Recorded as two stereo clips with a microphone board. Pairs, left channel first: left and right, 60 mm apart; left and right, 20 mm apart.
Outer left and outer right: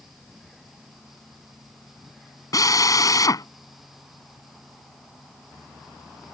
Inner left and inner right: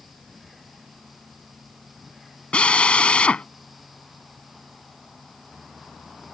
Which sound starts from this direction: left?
A drill, at 2.5 s.